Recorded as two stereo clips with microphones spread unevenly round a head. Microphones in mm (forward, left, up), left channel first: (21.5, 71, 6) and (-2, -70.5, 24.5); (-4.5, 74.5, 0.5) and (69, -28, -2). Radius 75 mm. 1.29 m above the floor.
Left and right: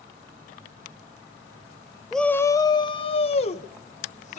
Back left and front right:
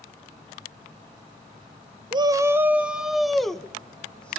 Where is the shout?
5° right, 0.6 m; by 4.4 s 45° left, 1.9 m.